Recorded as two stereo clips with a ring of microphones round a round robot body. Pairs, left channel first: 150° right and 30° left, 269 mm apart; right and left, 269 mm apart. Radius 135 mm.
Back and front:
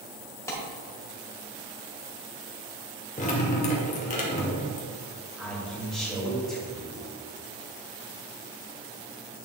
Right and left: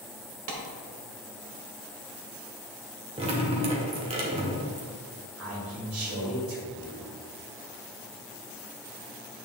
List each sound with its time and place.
0.5 s a clap: 130° left, 1.8 m
3.2 s dripping: 155° left, 1.5 m
5.4 s a man speaking: 120° left, 2.5 m